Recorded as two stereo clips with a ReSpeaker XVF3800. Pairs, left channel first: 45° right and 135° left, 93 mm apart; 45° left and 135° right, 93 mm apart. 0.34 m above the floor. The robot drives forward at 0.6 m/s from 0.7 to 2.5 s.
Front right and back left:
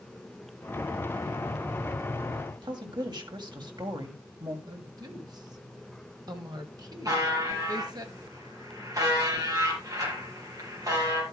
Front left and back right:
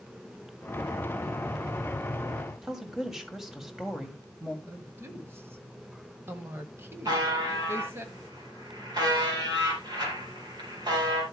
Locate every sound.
2.6 s a woman speaking: 140° left, 2.0 m
4.7 s a woman speaking: 165° left, 1.8 m
7.0 s a buzzer: 175° right, 5 m